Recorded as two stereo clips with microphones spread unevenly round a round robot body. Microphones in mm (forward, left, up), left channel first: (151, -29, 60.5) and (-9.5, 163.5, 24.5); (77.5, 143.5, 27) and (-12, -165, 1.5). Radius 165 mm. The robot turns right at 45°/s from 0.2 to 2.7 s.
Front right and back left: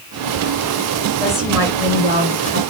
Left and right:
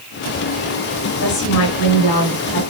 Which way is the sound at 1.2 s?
35° left.